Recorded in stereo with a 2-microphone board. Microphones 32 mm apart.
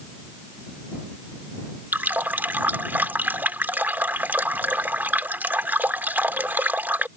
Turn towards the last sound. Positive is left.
turn(degrees=-85)